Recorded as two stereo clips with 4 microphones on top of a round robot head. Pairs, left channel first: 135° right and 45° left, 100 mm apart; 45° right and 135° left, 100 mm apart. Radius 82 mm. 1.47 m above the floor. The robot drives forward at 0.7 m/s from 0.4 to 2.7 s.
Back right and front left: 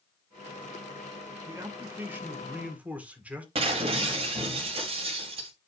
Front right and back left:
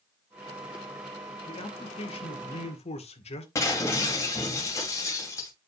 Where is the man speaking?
20° right, 2.5 m; by 3.5 s 30° right, 1.8 m.